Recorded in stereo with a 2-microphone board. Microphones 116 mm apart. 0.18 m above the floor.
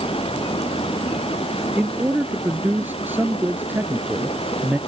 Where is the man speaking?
20° right (ahead or behind).